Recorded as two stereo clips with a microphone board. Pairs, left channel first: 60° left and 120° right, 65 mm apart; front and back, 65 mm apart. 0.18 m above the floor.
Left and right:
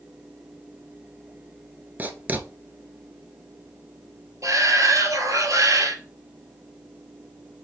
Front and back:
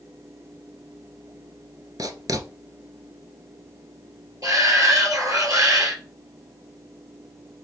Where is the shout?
150° right, 3 m.